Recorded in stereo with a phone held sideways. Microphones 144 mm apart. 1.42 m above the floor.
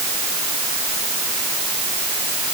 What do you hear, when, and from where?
Only background noise.